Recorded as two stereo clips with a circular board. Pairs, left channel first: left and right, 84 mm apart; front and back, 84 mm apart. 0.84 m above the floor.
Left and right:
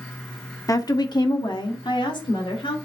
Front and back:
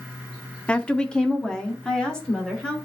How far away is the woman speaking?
About 0.8 m.